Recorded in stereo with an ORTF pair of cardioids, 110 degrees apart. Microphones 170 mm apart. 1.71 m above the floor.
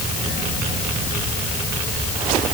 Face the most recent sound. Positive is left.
No sound to turn to.